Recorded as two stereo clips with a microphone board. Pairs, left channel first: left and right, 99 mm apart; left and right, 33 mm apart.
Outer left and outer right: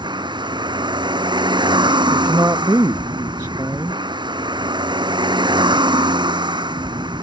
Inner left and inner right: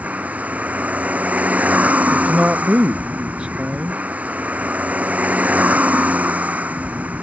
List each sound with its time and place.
0.0 s a vehicle: 50° right (ahead or behind)
2.1 s a man speaking: 30° right (ahead or behind)